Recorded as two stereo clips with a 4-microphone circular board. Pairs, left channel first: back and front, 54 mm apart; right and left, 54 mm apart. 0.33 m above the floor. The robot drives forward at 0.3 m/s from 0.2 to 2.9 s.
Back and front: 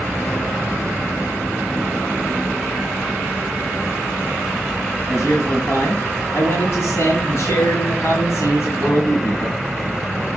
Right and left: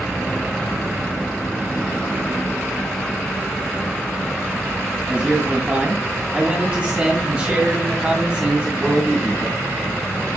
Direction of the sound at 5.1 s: 150° left.